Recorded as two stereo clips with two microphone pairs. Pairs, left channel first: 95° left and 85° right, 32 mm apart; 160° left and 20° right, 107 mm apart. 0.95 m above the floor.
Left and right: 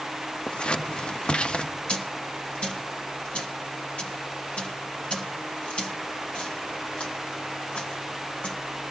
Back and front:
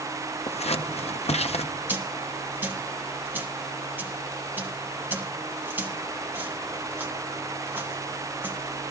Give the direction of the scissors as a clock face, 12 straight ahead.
7 o'clock.